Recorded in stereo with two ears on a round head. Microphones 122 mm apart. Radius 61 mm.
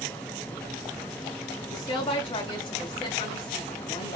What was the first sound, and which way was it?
A woman speaking, 40° left (ahead or behind).